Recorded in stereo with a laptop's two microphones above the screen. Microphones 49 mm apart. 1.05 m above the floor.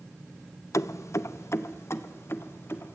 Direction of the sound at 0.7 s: 85° left.